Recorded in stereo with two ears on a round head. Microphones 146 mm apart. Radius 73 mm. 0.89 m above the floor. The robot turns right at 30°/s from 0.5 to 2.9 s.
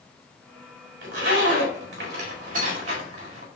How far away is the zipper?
About 1.6 m.